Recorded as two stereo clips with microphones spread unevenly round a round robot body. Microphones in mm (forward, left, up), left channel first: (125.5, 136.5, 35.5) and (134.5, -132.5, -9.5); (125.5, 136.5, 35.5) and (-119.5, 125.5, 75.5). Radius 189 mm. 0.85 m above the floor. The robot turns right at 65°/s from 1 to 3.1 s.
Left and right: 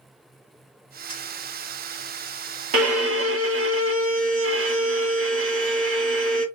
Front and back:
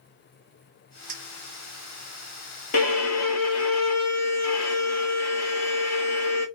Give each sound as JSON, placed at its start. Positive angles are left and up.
{"t": 1.1, "sound": "a clink", "azimuth_deg": 170, "distance_m": 1.5}
{"t": 2.7, "sound": "a violin", "azimuth_deg": -70, "distance_m": 1.5}